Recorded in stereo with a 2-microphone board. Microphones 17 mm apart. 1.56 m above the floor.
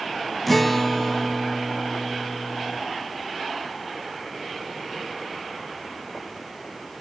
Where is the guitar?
10° left (ahead or behind), 1.6 m.